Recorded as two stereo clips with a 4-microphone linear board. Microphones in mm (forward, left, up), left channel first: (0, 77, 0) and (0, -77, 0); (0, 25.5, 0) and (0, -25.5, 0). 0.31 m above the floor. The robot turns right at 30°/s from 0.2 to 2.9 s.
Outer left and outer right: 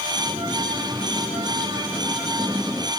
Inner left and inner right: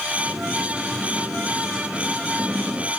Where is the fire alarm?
No fire alarm in this recording.